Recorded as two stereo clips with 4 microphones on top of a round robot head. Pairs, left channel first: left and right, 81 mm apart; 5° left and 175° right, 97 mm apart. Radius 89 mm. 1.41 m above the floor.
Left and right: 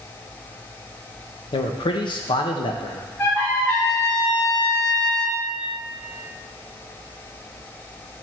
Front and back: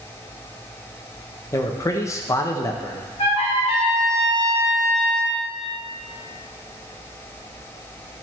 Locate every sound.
1.5 s a man speaking: 65° left, 1.0 m
3.2 s a trumpet: 35° left, 3 m